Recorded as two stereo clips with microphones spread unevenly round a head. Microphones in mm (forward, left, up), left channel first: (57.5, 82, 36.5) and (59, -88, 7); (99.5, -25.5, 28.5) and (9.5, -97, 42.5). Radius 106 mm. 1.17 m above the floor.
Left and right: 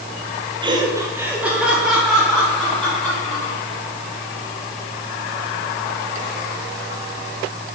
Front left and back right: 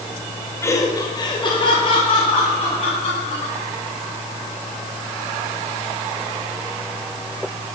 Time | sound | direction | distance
0.6 | laughter | 30° right | 2.0 m